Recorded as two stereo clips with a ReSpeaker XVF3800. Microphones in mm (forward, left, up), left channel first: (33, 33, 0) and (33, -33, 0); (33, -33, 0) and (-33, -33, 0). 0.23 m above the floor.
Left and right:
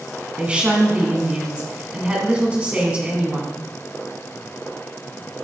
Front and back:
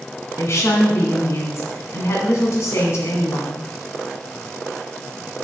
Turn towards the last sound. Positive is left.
turn(degrees=-25)